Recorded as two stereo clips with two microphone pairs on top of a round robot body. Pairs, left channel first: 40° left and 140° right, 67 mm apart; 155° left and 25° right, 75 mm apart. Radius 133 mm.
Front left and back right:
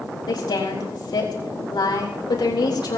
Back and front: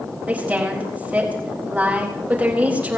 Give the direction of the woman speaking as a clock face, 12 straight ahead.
10 o'clock.